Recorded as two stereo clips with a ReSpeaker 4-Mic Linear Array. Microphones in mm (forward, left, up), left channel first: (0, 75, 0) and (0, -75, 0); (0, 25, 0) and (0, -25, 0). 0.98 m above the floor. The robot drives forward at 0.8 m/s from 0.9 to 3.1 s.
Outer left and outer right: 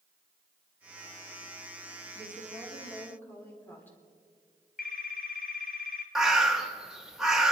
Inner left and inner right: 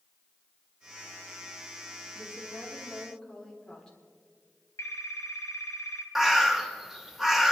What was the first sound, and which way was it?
A woman speaking, 15° left (ahead or behind).